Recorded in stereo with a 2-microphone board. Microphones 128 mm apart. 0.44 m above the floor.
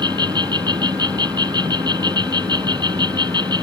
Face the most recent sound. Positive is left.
turn(degrees=-35)  # may be behind; listen again after turning